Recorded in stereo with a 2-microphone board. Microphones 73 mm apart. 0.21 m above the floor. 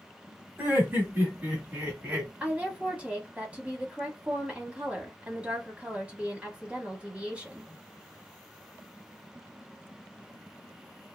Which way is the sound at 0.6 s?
30° right (ahead or behind).